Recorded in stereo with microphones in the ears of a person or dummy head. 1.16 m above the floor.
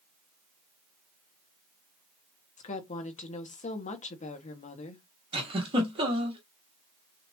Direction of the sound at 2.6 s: 35° left (ahead or behind).